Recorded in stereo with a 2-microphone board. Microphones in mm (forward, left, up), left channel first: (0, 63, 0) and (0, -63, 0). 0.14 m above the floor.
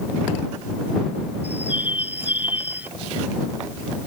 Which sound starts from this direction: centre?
A bird, at 1.4 s.